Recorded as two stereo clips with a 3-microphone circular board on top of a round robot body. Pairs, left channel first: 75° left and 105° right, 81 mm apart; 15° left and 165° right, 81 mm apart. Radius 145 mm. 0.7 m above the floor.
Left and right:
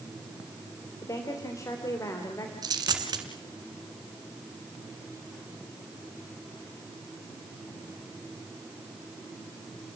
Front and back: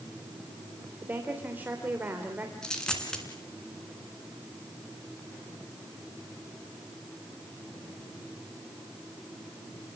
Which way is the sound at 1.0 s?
125° left.